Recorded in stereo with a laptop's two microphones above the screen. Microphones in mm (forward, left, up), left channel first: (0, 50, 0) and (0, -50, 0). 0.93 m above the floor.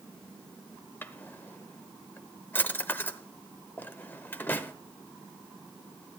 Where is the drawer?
20° left (ahead or behind), 0.7 m.